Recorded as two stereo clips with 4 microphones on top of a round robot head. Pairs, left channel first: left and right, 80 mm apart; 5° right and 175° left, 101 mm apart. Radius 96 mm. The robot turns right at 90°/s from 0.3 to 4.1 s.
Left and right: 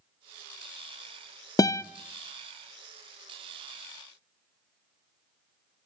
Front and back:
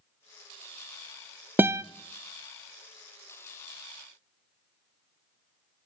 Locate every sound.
1.6 s a guitar: 110° left, 0.5 m; by 1.8 s 130° left, 0.5 m